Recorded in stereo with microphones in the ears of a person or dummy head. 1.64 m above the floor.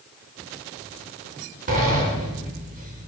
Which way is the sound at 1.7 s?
50° right (ahead or behind).